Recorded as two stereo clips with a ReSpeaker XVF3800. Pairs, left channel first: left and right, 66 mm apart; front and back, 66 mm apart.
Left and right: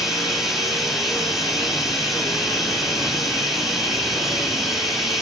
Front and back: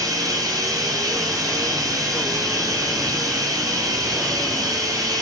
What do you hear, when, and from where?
0.0 s running water: 175° right, 1.7 m